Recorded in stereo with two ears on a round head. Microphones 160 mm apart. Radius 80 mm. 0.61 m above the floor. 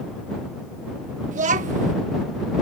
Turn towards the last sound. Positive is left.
turn(degrees=-45)  # may be behind; listen again after turning